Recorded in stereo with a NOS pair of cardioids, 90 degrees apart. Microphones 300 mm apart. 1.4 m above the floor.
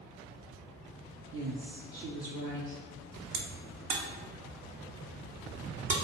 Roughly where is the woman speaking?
Ahead right.